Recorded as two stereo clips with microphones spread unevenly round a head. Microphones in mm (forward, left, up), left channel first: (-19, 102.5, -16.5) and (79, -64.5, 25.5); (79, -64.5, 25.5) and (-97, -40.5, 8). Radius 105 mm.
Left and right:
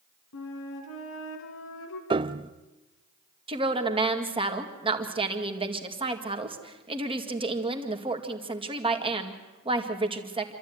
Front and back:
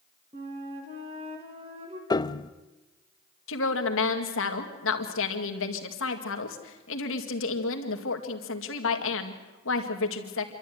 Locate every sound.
0.3 s a flute: 105° left, 2 m
2.1 s a piano: 50° right, 0.5 m
3.5 s a woman speaking: 5° left, 2 m